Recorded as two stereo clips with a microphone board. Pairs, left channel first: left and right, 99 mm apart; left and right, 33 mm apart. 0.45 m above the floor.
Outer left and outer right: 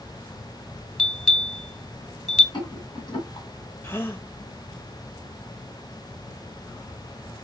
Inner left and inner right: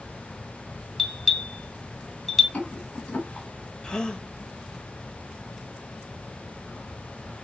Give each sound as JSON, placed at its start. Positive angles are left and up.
{"t": 1.0, "sound": "a bell", "side_deg": 5, "distance_m": 0.9}
{"t": 2.5, "sound": "a rattle", "side_deg": 45, "distance_m": 1.9}
{"t": 3.8, "sound": "a gasp", "side_deg": 20, "distance_m": 0.6}